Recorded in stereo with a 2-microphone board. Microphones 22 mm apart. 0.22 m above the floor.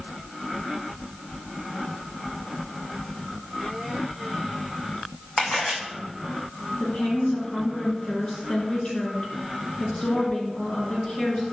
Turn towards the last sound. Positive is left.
turn(degrees=45)  # may be behind; listen again after turning